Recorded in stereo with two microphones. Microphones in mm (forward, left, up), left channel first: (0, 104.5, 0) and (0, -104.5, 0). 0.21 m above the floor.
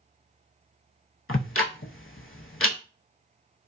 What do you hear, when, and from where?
1.3 s ticking: 85° left, 0.5 m